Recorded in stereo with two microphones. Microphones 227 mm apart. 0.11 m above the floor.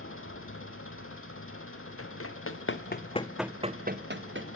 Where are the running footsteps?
80° left, 1.5 m; by 4.5 s 60° right (ahead or behind), 1.3 m.